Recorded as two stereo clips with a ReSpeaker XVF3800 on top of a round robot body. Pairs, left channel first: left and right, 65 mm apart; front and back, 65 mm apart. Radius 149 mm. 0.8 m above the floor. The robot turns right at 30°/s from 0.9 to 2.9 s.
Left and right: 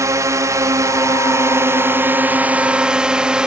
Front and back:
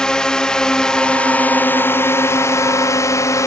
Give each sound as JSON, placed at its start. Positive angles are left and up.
{"t": 0.0, "sound": "a drone", "azimuth_deg": -75}